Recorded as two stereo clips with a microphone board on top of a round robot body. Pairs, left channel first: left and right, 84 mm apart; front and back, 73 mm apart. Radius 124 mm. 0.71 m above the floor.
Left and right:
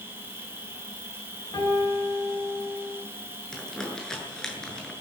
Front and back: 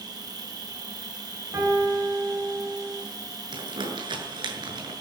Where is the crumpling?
175° left, 7.5 m.